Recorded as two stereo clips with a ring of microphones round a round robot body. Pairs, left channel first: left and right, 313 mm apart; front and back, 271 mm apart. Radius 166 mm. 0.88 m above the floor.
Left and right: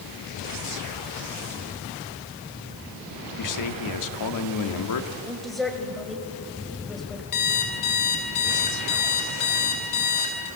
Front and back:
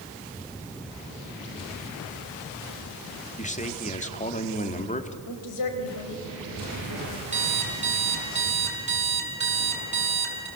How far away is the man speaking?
About 2 m.